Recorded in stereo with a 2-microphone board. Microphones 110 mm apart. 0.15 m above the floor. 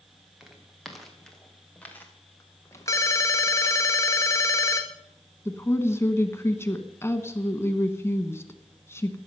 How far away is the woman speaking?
About 1.2 m.